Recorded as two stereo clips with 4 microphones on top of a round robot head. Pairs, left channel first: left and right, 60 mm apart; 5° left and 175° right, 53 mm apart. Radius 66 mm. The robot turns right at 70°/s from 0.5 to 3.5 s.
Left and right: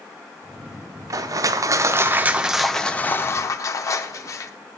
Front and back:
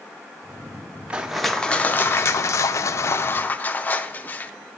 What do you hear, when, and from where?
1.1 s crushing: 105° right, 0.6 m; by 4.5 s 60° left, 0.6 m